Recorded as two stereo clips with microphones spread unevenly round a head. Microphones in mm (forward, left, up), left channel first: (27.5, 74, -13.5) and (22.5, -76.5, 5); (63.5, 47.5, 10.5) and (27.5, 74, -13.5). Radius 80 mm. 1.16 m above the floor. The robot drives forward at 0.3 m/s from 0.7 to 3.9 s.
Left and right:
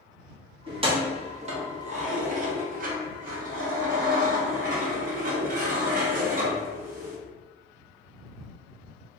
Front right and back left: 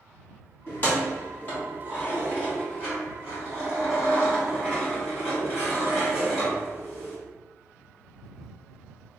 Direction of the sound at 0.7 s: 45° right.